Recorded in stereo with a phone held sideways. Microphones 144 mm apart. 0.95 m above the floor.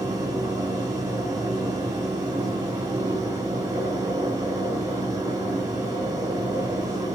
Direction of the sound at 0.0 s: 25° right (ahead or behind).